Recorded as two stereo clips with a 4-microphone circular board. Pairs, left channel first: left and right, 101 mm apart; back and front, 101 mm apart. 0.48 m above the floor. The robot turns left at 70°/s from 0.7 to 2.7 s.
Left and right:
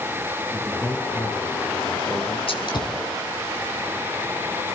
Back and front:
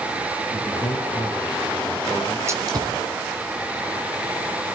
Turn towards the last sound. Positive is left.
turn(degrees=50)